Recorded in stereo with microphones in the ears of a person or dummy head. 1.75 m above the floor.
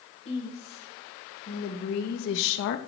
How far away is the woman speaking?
About 2.5 m.